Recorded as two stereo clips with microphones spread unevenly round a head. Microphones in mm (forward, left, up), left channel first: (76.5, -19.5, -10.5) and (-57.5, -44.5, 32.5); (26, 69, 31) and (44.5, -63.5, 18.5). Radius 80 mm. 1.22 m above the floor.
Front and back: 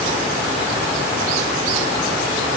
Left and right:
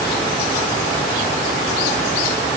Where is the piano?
I don't hear a piano.